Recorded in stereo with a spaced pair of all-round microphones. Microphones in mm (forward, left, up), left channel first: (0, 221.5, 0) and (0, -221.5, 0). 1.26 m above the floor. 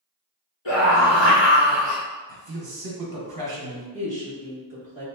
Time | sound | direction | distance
0.7 | a scream | 75° left (ahead or behind) | 1.9 m
2.3 | a man speaking | 55° right (ahead or behind) | 0.9 m
3.9 | a woman speaking | 70° left (ahead or behind) | 1.6 m